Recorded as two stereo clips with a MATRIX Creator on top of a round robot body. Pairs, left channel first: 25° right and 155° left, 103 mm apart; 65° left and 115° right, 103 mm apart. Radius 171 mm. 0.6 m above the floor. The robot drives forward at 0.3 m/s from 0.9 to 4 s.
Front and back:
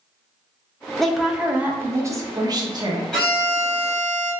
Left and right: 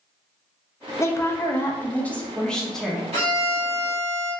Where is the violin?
105° right, 1.1 m; by 4.3 s 120° right, 1.2 m.